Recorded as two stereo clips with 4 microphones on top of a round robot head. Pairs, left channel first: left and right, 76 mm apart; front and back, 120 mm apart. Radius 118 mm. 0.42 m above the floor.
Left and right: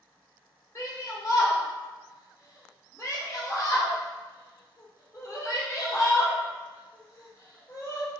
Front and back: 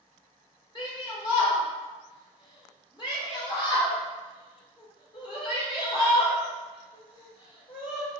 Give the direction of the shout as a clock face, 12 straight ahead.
11 o'clock.